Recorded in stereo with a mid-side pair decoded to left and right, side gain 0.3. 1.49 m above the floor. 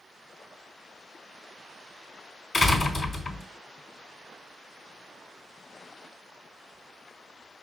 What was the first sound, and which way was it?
A door slam, 70° left.